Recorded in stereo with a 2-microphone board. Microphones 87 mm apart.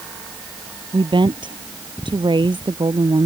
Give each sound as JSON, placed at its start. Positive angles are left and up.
{"t": 0.9, "sound": "a woman speaking", "side_deg": -60}